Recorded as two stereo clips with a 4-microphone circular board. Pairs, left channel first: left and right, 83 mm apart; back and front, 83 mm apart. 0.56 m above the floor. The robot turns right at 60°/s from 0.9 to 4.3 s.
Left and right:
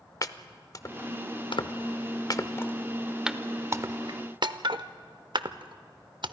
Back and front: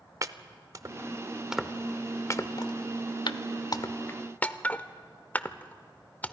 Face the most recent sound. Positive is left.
turn(degrees=-110)